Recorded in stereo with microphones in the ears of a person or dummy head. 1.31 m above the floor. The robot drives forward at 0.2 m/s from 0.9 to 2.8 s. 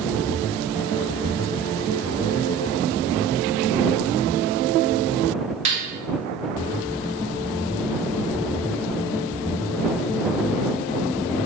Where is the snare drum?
35° right (ahead or behind), 0.5 m.